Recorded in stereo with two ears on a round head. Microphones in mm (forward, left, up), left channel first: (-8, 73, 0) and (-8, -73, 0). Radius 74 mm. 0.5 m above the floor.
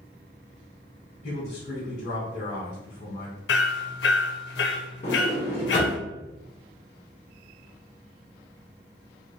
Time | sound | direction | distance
1.2 | a man speaking | 45° left (ahead or behind) | 1.9 m
3.5 | hammering | 70° left (ahead or behind) | 0.5 m
5.0 | a sliding door | 40° left (ahead or behind) | 1.6 m